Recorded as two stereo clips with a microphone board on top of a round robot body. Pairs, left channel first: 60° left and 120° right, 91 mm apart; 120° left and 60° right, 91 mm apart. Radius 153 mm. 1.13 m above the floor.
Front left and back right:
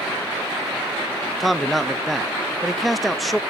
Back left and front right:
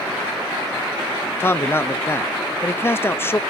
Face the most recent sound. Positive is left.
turn(degrees=150)